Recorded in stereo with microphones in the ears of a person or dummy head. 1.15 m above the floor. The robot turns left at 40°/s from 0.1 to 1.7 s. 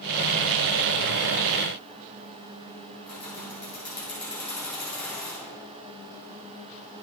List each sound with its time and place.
3.1 s keys jangling: 5° left (ahead or behind), 2 m